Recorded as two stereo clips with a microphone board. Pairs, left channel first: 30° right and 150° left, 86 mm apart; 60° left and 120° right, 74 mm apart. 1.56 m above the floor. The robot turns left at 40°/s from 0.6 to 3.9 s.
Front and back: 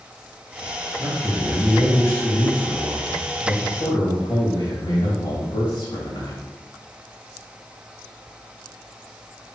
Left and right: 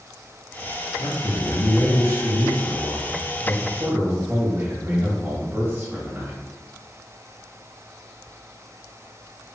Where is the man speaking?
75° left, 2.5 m; by 6.5 s 45° right, 2.5 m.